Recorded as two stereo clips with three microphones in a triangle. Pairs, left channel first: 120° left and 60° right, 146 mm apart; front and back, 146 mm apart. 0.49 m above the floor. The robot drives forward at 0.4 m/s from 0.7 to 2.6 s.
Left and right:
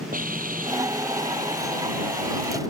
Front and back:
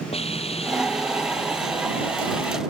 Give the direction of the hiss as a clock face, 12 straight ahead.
2 o'clock.